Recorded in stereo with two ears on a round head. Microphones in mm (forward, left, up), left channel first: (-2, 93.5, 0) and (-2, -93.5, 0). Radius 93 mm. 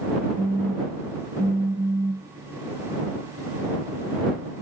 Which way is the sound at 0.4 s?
15° right (ahead or behind).